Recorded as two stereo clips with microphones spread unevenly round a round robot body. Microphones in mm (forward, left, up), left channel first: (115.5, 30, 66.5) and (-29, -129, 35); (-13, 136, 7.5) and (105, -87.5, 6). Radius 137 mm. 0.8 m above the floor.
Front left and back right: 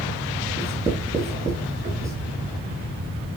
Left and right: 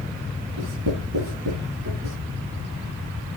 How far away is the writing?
About 8.5 m.